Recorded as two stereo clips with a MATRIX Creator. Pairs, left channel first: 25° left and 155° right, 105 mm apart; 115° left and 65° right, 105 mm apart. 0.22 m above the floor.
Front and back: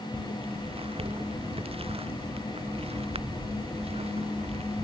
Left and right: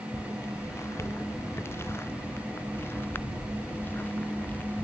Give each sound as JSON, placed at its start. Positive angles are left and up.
{"t": 0.1, "sound": "footsteps", "azimuth_deg": 175}